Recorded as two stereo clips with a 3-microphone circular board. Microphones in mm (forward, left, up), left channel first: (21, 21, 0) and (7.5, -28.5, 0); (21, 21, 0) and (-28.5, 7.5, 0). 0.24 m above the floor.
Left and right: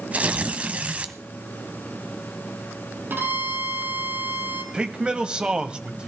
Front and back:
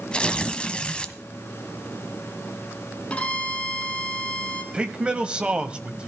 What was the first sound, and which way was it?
Tearing paper, 45° right.